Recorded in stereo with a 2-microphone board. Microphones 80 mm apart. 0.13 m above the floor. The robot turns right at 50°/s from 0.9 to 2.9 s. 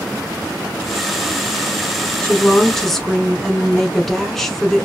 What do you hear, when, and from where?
2.2 s a woman speaking: 15° left (ahead or behind), 1.1 m; by 4.9 s 5° left (ahead or behind), 1.1 m